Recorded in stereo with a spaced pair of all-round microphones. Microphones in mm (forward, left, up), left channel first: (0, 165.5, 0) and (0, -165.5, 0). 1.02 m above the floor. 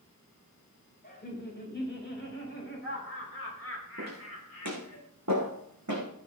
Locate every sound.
1.0 s laughter: 30° left (ahead or behind), 5.5 m; by 5.0 s 50° left (ahead or behind), 5.5 m
4.0 s footsteps: 55° right (ahead or behind), 4.5 m; by 6.1 s 60° right (ahead or behind), 3.5 m